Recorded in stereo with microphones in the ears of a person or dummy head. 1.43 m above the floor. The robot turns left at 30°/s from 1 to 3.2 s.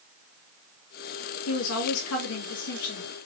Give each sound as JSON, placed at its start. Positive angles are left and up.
{"t": 1.5, "sound": "a woman speaking", "azimuth_deg": 95, "distance_m": 1.7}